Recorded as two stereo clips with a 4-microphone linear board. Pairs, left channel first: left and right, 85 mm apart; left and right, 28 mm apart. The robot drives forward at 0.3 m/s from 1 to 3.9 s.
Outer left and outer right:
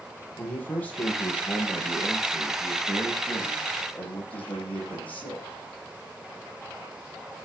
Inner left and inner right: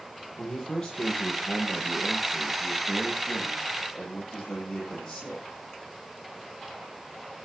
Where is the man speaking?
20° left (ahead or behind), 9.5 m.